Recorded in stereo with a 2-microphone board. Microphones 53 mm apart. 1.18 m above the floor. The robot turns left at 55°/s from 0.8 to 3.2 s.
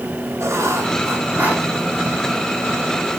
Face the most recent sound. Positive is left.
turn(degrees=115)